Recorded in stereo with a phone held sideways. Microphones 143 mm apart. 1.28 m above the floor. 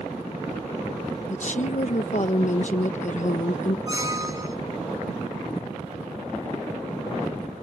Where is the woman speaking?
55° left (ahead or behind).